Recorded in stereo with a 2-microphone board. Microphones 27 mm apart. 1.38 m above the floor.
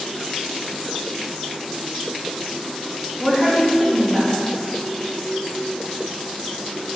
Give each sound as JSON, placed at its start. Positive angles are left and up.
{"t": 3.2, "sound": "a woman speaking", "side_deg": -5, "distance_m": 4.0}